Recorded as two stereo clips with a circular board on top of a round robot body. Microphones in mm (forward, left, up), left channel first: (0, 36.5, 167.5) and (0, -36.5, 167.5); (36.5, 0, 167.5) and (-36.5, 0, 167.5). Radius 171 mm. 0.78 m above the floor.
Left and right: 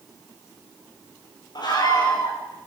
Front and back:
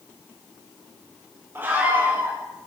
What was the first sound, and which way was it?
A scream, 115° left.